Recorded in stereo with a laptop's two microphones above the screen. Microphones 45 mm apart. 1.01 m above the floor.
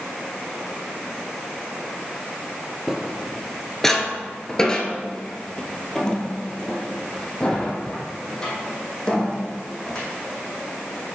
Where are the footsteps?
Centre (ahead or behind), 1.0 m; by 10.1 s 20° left (ahead or behind), 3.5 m.